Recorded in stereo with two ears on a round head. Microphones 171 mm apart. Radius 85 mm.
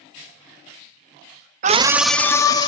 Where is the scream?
40° right (ahead or behind), 0.7 m; by 2.7 s 25° left (ahead or behind), 1.6 m.